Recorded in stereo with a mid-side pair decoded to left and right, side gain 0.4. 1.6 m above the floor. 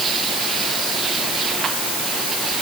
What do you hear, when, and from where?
Only background noise.